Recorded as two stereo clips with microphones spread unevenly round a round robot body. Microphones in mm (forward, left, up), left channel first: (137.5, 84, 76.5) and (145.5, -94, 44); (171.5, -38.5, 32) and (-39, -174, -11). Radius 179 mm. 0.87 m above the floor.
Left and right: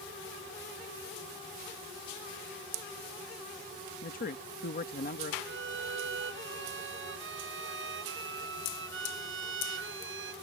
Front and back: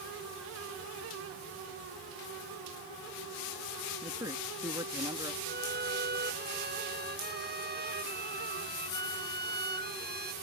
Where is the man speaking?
140° left.